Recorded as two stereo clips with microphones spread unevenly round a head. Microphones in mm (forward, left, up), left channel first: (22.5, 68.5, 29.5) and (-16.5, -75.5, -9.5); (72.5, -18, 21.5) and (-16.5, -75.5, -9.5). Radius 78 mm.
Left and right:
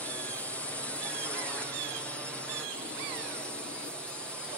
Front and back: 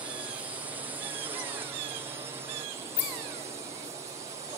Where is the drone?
170° left.